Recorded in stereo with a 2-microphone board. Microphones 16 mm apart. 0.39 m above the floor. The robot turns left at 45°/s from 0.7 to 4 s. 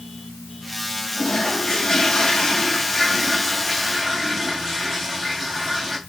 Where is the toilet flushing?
105° left, 3 m; by 6.0 s 20° right, 3 m.